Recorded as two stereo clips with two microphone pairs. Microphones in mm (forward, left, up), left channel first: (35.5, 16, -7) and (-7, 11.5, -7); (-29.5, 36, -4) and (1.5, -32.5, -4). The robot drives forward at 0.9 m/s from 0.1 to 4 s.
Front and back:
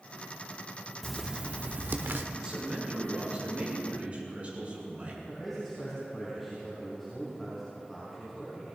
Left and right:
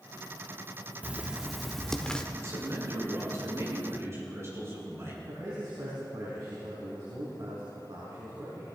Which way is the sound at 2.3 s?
105° right.